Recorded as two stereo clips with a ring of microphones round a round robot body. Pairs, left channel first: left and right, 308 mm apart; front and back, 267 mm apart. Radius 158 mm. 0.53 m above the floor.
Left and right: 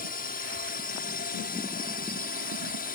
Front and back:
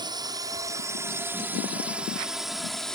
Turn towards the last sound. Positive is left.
turn(degrees=85)